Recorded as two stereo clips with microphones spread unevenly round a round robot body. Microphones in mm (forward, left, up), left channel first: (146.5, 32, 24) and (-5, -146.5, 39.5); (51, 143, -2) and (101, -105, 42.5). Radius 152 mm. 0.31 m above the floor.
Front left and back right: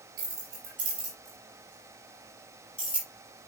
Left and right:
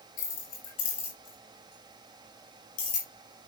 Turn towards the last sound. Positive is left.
turn(degrees=120)